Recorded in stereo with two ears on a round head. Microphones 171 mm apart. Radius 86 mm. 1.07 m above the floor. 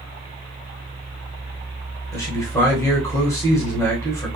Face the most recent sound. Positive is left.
turn(degrees=15)  # may be behind; listen again after turning